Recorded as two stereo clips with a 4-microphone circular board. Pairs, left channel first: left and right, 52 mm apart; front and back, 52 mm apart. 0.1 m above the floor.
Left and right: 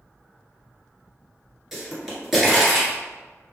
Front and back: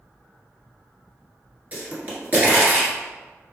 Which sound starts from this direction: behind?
A pop, at 1.7 s.